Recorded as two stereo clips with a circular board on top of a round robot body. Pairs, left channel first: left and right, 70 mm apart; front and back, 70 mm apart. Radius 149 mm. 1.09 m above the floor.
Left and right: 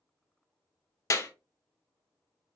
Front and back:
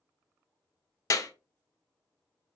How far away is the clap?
About 0.6 m.